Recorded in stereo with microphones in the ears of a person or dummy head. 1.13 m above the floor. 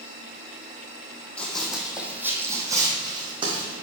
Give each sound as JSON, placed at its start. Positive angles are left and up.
{"t": 1.4, "sound": "running footsteps", "side_deg": 10, "distance_m": 2.5}